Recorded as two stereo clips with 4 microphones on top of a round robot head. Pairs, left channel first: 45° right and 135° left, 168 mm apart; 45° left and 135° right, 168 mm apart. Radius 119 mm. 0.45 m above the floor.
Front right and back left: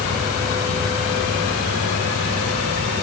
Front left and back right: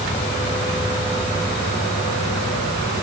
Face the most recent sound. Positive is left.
No sound to turn to.